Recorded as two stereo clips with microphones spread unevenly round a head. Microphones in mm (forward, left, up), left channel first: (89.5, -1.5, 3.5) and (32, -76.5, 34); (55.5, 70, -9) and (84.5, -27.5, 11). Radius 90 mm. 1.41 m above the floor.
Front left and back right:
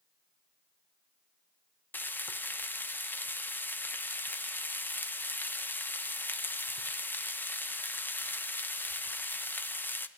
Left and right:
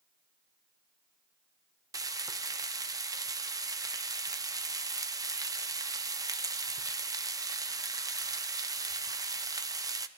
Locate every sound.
1.9 s frying: 15° right, 0.6 m